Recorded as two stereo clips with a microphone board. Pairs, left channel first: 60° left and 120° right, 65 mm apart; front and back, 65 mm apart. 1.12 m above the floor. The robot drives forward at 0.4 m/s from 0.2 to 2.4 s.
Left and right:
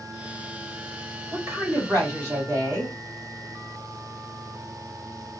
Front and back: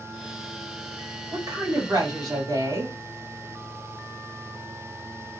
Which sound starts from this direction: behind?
A woman speaking, at 1.3 s.